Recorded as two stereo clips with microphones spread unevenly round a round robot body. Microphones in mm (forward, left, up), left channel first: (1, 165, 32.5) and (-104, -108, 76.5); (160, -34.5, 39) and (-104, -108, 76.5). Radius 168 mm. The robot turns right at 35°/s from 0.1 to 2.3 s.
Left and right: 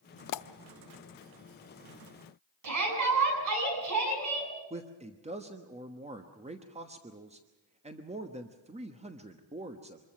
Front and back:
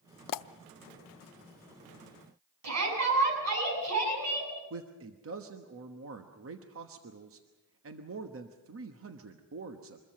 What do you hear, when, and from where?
0.3 s a pop: 30° left, 0.5 m; by 0.5 s 40° left, 0.5 m
2.6 s a shout: 140° right, 8 m
4.7 s a man speaking: straight behind, 1.3 m